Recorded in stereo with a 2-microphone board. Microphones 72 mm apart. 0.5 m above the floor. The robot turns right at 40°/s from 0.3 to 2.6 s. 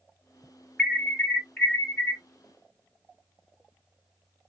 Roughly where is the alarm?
Ahead.